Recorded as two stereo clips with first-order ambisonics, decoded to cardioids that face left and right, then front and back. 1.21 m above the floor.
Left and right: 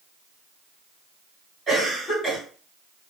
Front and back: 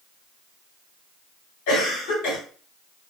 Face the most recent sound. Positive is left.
turn(degrees=-10)